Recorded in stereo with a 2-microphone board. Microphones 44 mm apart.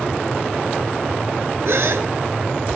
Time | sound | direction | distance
1.6 | a gasp | 80° right | 0.8 m